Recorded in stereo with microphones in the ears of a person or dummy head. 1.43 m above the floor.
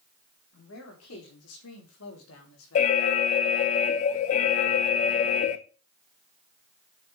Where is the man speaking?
75° left (ahead or behind), 4 m.